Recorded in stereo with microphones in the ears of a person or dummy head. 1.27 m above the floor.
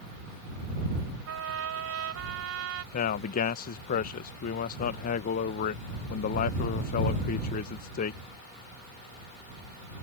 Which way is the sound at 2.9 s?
45° left (ahead or behind).